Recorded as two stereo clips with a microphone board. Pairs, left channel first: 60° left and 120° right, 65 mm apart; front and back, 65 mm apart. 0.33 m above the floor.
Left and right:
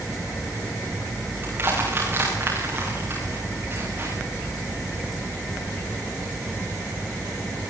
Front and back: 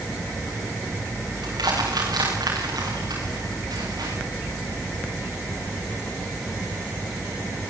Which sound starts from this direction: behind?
Crushing, at 1.4 s.